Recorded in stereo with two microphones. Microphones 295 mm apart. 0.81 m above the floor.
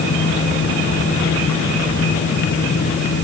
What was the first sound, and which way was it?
Only background noise.